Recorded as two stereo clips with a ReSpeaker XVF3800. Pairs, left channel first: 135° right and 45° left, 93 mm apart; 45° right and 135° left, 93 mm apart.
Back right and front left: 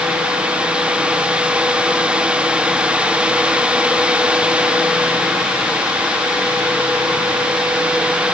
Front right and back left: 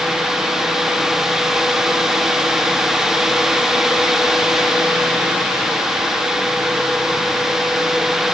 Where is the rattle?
I don't hear a rattle.